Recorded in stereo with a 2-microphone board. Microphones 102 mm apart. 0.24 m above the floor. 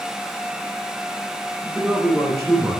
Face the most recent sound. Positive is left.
turn(degrees=-25)  # may be behind; listen again after turning